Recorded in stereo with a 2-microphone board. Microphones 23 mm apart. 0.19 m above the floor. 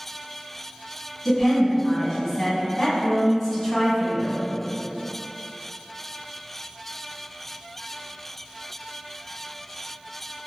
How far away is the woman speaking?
About 1.1 m.